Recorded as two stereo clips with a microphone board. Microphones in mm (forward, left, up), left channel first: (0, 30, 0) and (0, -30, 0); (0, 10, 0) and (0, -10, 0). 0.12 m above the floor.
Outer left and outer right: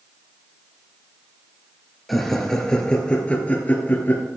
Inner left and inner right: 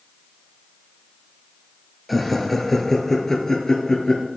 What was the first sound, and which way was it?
Laughter, centre (ahead or behind).